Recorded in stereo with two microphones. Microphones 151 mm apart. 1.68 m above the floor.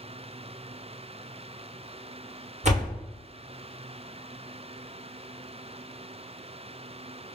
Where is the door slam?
50° right (ahead or behind), 0.8 m.